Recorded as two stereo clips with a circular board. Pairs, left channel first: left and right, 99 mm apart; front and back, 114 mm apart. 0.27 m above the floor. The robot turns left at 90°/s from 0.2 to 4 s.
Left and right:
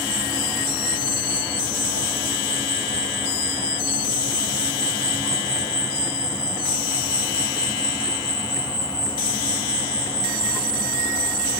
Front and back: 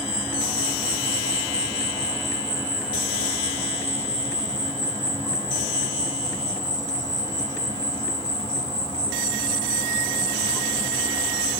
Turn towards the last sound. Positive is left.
turn(degrees=165)